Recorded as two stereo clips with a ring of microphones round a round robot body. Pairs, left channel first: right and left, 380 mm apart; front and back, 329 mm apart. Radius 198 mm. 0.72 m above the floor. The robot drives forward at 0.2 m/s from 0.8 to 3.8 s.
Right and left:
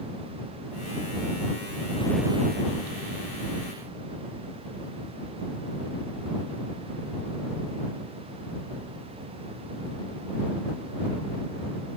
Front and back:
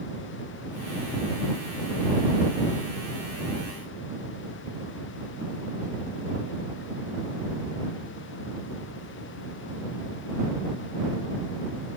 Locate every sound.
Only background noise.